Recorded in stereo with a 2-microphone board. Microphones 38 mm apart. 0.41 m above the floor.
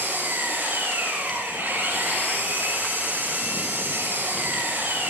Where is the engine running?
80° right, 8 m.